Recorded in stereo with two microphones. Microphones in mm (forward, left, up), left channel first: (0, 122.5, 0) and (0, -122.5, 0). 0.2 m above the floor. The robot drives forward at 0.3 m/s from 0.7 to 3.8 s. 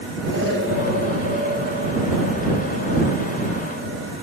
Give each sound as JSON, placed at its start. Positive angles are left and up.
{"t": 0.3, "sound": "an explosion", "side_deg": -65, "distance_m": 9.0}